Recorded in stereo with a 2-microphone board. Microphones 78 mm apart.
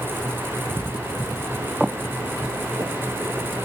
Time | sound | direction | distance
1.8 | footsteps | 5° right (ahead or behind) | 1.5 m